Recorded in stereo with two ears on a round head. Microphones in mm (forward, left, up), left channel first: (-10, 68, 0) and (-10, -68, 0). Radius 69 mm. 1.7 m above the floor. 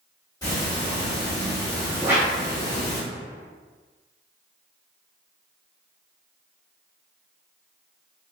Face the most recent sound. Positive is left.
turn(degrees=-15)  # may be behind; listen again after turning